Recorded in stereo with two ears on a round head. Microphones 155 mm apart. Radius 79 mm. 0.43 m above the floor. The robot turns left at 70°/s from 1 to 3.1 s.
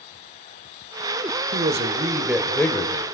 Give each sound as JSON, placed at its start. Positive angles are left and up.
{"t": 1.5, "sound": "a man speaking", "azimuth_deg": -115, "distance_m": 1.3}